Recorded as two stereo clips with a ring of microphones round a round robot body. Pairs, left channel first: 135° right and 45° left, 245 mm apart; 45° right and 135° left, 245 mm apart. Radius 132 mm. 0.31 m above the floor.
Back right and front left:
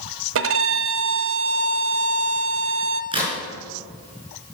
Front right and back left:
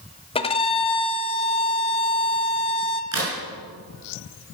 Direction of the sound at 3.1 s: 115° left.